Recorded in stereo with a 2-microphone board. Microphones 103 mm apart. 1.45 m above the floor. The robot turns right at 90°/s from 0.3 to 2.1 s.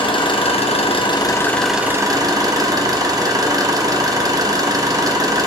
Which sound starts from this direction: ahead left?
An engine running, at 0.0 s.